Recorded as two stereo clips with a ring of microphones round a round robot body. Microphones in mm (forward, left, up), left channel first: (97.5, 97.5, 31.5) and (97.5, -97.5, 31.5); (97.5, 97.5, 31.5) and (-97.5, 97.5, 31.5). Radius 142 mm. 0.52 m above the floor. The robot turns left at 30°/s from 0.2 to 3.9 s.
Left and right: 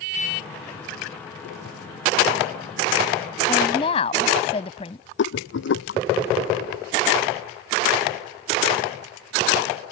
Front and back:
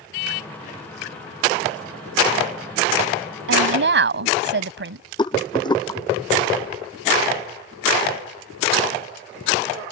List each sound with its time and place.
3.5 s a woman speaking: 170° left; by 5.0 s 160° left
5.2 s a rattle: 70° left